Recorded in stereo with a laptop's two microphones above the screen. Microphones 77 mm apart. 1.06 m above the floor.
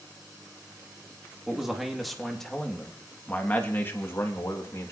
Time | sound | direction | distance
1.5 | a man speaking | 5° right (ahead or behind) | 2.5 m